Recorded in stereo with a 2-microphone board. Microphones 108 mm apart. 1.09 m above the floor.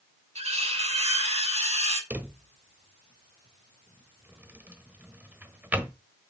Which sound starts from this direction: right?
Cutlery clinking, at 0.3 s.